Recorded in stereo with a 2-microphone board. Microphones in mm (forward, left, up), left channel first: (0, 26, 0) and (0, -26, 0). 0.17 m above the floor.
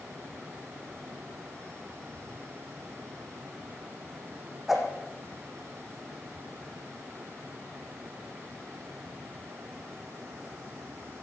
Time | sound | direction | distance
4.7 | a whoosh | 5° right (ahead or behind) | 4.5 m